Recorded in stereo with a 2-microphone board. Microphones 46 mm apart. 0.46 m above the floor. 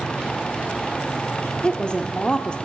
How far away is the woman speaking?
About 0.9 m.